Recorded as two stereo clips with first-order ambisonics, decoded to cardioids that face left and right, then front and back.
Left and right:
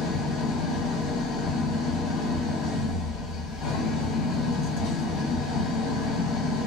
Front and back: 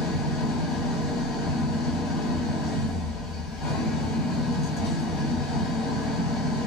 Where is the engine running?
45° left, 1.6 m.